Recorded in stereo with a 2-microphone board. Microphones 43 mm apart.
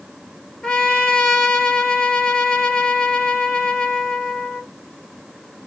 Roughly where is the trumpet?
Centre.